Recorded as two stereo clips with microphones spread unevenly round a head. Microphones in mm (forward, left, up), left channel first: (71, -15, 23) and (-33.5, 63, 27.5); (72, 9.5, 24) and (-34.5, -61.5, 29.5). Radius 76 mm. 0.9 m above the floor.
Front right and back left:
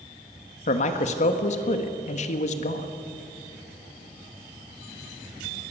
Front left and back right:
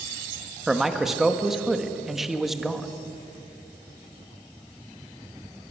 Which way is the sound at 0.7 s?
55° right.